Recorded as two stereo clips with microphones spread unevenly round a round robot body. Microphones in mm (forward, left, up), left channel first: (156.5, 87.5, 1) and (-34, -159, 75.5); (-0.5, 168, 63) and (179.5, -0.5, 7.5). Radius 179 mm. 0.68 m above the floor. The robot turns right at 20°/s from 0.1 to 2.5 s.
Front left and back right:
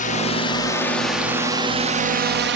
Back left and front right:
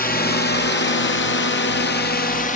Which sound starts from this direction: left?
A drone, at 0.0 s.